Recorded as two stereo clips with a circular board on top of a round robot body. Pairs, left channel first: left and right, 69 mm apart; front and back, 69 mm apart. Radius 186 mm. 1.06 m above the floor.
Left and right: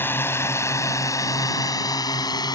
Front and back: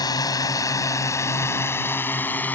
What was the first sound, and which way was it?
A drone, 30° left.